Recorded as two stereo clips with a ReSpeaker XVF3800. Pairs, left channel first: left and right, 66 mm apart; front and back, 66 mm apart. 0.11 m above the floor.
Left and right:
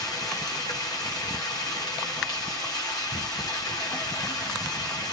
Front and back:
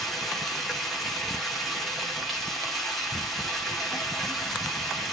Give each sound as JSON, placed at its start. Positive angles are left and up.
{"t": 0.0, "sound": "running water", "azimuth_deg": 90, "distance_m": 4.5}